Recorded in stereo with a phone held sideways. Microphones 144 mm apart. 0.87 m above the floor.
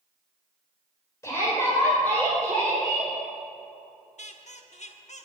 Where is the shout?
20° left (ahead or behind), 4 m; by 3.1 s centre (ahead or behind), 4 m.